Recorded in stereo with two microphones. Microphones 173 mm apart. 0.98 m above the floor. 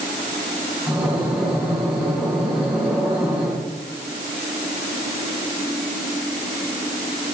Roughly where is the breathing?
Centre.